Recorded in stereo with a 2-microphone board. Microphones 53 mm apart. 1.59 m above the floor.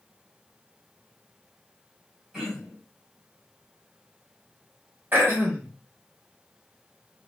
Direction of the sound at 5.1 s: 40° right (ahead or behind).